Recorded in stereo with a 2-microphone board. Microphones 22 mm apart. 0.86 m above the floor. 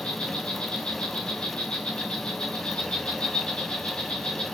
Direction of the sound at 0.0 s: 55° left (ahead or behind).